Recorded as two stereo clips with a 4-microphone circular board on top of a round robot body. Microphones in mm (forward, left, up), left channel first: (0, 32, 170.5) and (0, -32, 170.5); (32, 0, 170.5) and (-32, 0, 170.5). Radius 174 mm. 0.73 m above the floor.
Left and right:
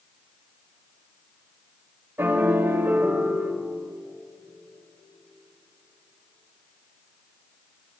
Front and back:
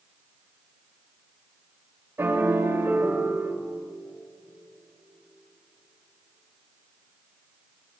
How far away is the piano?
About 2.5 m.